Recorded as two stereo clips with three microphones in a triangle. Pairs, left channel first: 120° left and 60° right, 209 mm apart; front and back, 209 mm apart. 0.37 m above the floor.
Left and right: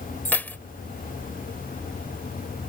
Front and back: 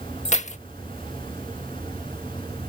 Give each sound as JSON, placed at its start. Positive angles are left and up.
{"t": 0.2, "sound": "keys jangling", "azimuth_deg": 45}